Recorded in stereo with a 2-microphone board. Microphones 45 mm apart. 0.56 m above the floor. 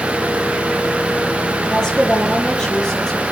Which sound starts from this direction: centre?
A woman speaking, at 1.7 s.